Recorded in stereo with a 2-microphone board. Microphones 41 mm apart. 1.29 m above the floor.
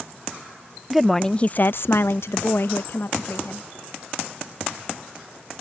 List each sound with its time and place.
0.9 s a woman speaking: 5° right (ahead or behind); by 3.7 s 60° left (ahead or behind)